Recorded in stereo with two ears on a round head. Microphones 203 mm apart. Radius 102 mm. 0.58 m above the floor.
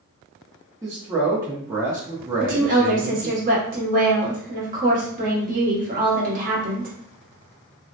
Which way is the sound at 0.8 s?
15° right (ahead or behind).